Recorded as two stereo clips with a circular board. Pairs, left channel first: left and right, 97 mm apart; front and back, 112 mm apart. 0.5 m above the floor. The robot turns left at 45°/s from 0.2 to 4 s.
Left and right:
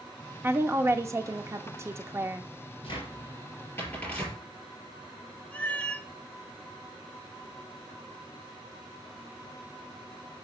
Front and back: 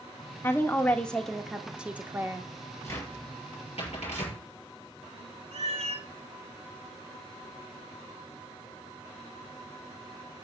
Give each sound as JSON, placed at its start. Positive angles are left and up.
{"t": 0.4, "sound": "a woman speaking", "azimuth_deg": -45, "distance_m": 0.8}
{"t": 2.8, "sound": "a cupboard door", "azimuth_deg": 65, "distance_m": 5.0}
{"t": 5.5, "sound": "a cat meowing", "azimuth_deg": 165, "distance_m": 0.9}